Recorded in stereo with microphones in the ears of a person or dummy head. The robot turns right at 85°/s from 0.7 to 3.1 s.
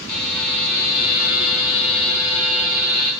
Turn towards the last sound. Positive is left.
turn(degrees=-150)